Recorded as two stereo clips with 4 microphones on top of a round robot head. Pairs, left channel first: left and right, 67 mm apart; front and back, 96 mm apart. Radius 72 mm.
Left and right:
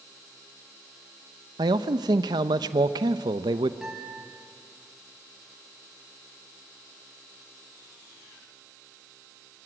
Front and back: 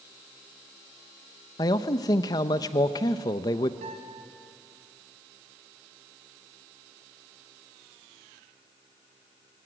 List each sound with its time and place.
1.6 s a man speaking: 60° right, 0.7 m
3.8 s a guitar: 175° right, 4.5 m